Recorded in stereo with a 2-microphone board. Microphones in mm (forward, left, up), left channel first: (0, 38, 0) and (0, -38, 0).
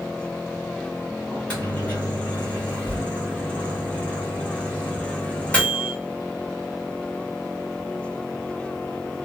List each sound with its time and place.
1.3 s a microwave: 15° left (ahead or behind), 1.1 m